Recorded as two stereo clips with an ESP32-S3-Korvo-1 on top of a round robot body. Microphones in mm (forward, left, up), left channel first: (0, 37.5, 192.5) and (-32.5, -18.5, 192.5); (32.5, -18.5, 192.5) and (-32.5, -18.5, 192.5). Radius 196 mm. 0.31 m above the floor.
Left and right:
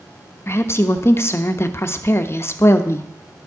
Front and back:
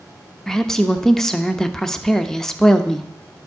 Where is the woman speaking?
80° left, 1.1 m.